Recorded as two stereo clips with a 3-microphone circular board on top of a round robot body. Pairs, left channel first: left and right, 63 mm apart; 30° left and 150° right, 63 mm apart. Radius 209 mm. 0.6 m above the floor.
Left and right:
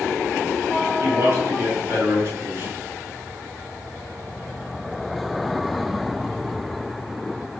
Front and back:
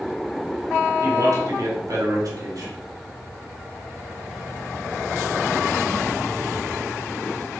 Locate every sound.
1.0 s a man speaking: 135° right, 3.5 m